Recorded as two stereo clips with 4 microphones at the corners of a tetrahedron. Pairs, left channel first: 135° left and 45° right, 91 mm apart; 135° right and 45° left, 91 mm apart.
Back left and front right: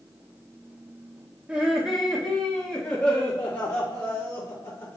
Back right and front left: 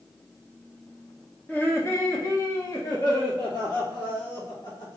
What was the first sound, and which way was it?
Laughter, 100° right.